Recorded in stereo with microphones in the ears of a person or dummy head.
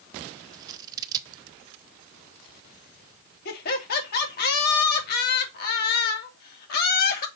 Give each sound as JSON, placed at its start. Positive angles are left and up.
{"t": 0.5, "sound": "scissors", "side_deg": -20, "distance_m": 0.7}
{"t": 3.5, "sound": "laughter", "side_deg": 60, "distance_m": 2.5}